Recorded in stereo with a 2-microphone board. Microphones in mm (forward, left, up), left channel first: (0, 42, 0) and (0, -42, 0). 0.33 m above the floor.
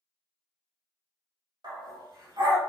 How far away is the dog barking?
About 1.4 m.